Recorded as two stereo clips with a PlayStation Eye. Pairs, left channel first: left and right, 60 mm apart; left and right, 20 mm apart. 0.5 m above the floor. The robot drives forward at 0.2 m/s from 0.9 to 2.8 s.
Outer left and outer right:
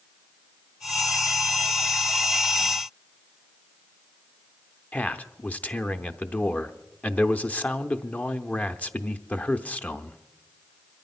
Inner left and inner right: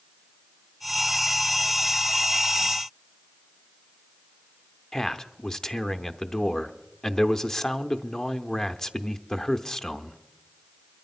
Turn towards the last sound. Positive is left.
turn(degrees=25)  # may be behind; listen again after turning